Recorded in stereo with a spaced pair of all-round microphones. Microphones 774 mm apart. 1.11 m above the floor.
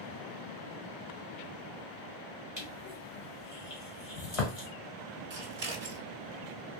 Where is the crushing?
45° left (ahead or behind), 1.4 m.